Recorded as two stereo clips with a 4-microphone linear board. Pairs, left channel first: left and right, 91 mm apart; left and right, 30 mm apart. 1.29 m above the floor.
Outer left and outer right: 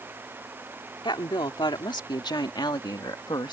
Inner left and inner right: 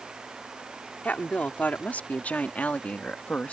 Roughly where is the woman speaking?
Left.